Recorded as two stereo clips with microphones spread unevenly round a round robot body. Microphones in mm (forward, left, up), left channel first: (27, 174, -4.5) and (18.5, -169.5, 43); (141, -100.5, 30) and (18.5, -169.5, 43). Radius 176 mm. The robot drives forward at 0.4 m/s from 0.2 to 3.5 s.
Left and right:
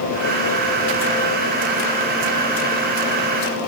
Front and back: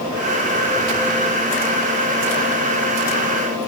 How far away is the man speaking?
No man speaking in this recording.